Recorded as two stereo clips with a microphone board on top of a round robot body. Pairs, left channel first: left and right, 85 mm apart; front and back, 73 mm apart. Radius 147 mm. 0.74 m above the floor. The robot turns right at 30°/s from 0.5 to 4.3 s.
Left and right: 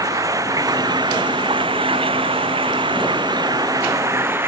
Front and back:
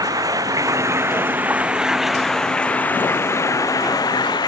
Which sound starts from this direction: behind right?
Running water, at 0.0 s.